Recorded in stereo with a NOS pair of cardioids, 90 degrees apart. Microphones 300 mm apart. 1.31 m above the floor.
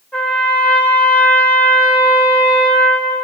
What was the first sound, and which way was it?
A trumpet, 5° left.